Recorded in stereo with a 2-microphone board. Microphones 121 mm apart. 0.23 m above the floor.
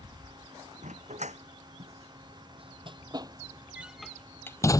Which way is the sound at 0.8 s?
70° right (ahead or behind).